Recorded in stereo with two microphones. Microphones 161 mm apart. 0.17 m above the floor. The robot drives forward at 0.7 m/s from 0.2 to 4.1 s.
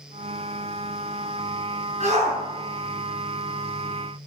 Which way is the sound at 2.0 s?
45° right (ahead or behind).